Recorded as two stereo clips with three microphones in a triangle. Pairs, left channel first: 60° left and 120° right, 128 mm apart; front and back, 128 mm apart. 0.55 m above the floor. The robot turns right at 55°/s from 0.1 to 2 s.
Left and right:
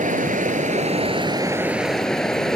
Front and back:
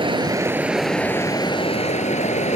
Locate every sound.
0.0 s running water: 130° right; by 2.6 s 25° right